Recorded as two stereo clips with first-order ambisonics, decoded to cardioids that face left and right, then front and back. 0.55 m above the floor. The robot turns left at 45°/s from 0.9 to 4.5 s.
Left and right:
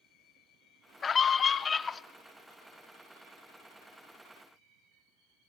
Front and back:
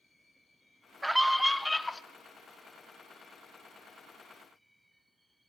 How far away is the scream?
About 0.6 m.